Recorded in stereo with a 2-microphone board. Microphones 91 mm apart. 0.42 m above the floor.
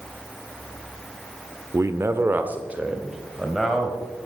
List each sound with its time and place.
1.7 s a man speaking: 30° right (ahead or behind), 0.8 m; by 4.3 s centre (ahead or behind), 2.5 m